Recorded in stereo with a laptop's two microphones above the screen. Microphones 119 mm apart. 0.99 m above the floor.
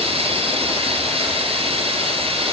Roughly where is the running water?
Right.